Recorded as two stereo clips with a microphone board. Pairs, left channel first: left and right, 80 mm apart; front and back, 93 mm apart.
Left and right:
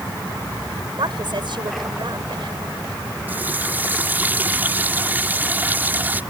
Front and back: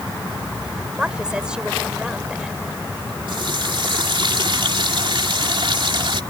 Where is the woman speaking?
100° right.